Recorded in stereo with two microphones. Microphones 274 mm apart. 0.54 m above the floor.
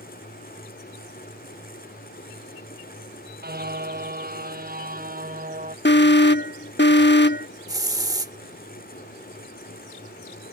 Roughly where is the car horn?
Right.